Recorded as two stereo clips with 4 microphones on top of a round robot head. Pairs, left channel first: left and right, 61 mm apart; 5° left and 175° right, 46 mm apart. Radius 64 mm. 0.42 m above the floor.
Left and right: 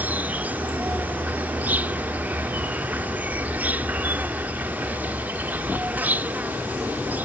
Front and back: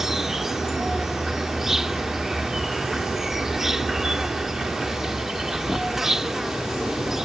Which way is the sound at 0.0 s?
105° right.